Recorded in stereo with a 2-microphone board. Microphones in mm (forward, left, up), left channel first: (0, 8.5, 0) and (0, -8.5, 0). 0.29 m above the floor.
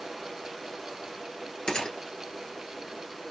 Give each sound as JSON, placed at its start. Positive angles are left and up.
{"t": 1.7, "sound": "a gunshot", "side_deg": 70, "distance_m": 1.1}